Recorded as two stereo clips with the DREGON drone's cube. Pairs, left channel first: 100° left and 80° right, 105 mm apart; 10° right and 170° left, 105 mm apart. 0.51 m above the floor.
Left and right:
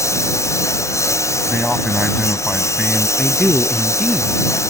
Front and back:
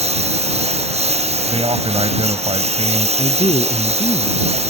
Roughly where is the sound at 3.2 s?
Ahead.